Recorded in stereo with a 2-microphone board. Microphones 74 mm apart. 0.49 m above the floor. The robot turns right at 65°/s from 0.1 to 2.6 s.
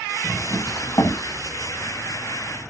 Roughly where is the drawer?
Ahead.